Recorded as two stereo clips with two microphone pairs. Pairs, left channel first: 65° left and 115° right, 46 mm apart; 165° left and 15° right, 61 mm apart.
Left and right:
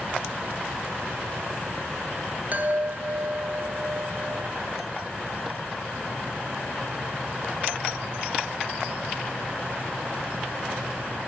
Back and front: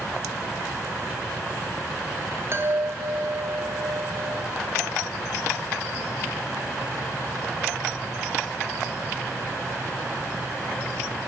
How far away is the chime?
About 0.8 m.